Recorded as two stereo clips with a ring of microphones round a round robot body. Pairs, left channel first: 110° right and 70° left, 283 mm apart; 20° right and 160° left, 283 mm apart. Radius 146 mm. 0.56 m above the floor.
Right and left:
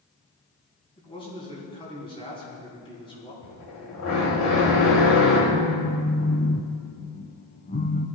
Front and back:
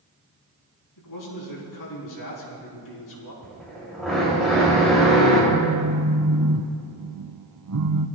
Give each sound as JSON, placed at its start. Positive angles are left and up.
{"t": 1.0, "sound": "a man speaking", "azimuth_deg": -40, "distance_m": 5.0}
{"t": 3.4, "sound": "a drill", "azimuth_deg": -110, "distance_m": 4.0}
{"t": 5.5, "sound": "a phone buzzing", "azimuth_deg": -170, "distance_m": 0.7}